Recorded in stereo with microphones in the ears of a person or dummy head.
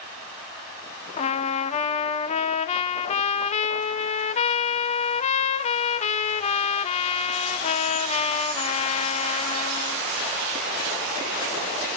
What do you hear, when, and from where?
1.2 s a trumpet: 35° left (ahead or behind), 0.8 m